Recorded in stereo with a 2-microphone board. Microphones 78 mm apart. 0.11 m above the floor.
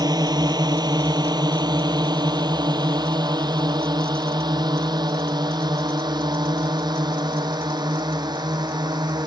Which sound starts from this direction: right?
A drone, at 0.0 s.